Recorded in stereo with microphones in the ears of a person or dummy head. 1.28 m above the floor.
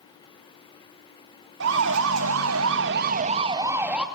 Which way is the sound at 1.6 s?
75° right (ahead or behind).